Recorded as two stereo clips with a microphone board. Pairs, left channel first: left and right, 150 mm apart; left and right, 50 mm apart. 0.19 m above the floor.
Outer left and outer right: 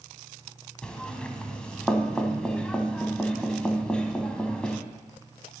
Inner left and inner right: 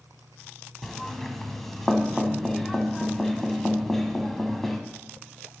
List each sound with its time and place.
0.8 s knocking: 5° left (ahead or behind), 0.9 m